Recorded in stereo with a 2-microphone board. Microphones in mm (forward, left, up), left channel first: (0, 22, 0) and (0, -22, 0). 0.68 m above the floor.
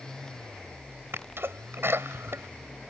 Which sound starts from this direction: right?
A sneeze, at 1.1 s.